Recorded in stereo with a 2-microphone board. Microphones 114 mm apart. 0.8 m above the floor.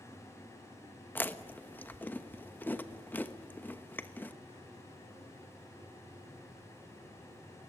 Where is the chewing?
15° left (ahead or behind), 1.0 m.